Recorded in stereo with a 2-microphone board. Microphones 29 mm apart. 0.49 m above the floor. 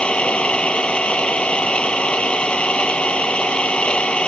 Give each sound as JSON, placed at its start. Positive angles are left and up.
{"t": 0.0, "sound": "an engine running", "side_deg": 40}